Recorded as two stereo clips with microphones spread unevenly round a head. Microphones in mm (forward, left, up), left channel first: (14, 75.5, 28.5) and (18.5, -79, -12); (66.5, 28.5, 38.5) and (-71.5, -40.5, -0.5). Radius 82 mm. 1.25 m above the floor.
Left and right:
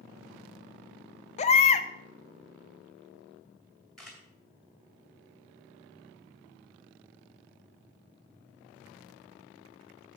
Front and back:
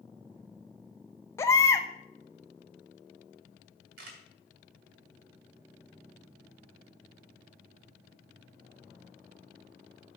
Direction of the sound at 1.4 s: 85° left.